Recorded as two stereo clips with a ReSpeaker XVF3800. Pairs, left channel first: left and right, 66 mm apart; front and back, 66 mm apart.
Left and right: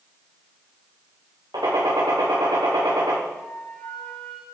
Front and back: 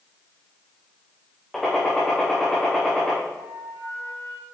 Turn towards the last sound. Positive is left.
turn(degrees=165)